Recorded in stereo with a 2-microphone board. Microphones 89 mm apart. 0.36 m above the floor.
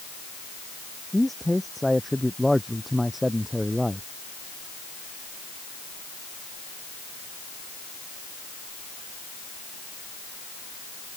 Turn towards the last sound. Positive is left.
turn(degrees=-5)  # may be behind; listen again after turning